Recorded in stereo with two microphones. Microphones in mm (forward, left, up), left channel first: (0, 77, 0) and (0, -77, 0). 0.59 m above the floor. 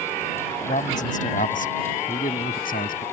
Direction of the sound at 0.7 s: 55° left (ahead or behind).